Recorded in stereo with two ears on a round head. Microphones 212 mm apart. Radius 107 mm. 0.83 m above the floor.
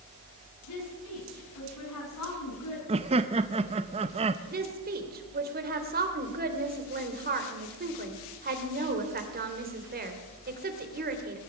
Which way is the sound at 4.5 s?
40° right (ahead or behind).